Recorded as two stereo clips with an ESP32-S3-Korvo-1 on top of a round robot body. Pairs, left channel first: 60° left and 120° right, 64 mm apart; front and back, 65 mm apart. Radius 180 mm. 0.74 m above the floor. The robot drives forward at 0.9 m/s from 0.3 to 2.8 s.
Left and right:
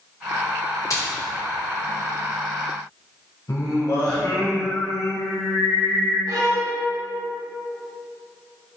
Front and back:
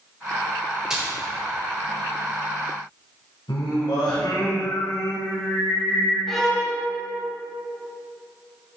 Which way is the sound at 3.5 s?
15° left.